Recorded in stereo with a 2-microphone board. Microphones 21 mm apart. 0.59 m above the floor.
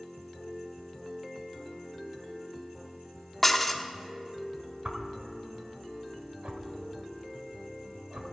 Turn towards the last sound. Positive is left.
turn(degrees=-75)  # may be behind; listen again after turning